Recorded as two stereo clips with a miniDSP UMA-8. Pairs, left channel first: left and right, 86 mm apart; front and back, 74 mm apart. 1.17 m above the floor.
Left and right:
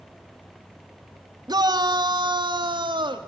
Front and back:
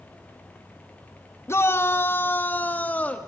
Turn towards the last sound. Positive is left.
turn(degrees=-70)